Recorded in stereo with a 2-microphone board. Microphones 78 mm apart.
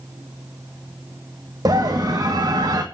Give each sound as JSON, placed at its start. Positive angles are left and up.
{"t": 1.6, "sound": "a scream", "side_deg": -50, "distance_m": 1.9}